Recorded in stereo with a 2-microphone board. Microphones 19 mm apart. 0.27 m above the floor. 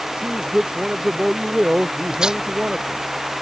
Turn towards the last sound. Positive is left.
turn(degrees=-45)  # may be behind; listen again after turning